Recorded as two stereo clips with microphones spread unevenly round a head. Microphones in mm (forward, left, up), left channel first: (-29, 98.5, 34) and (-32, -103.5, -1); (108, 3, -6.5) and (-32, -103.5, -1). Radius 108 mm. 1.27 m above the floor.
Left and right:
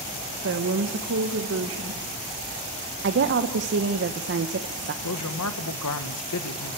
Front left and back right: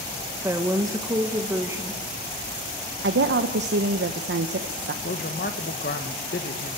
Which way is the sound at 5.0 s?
85° left.